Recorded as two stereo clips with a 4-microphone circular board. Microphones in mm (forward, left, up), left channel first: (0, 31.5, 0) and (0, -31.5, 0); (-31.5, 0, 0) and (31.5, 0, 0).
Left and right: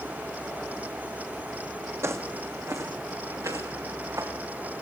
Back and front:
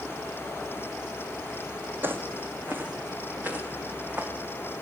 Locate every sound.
2.0 s footsteps: 50° right, 2.5 m; by 4.3 s 60° right, 5.5 m